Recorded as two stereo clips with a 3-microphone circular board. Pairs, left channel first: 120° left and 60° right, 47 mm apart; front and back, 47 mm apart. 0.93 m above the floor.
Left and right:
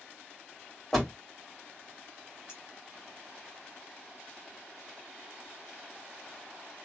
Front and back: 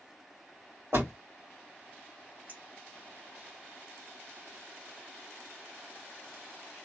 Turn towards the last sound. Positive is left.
turn(degrees=-135)